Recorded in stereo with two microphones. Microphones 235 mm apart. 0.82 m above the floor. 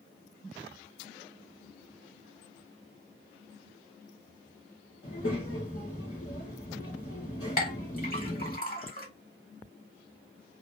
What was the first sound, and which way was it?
A child speaking, 70° left (ahead or behind).